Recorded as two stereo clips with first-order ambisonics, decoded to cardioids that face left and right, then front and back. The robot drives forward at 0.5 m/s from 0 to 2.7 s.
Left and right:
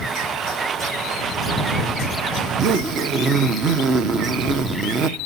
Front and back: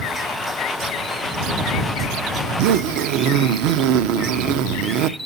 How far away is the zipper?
About 0.6 m.